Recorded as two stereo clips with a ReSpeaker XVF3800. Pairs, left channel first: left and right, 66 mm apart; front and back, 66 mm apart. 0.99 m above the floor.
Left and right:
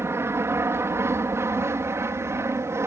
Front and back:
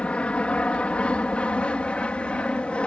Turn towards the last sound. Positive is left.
turn(degrees=-70)